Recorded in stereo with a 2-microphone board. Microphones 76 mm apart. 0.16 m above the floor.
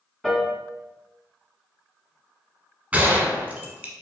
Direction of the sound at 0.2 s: 5° left (ahead or behind).